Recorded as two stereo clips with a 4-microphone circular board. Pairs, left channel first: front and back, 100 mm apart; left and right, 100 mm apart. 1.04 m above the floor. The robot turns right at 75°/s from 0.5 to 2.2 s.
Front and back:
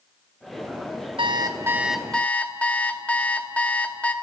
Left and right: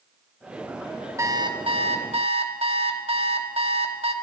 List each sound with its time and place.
1.2 s an alarm clock: 150° right, 1.3 m; by 4.1 s 75° right, 1.3 m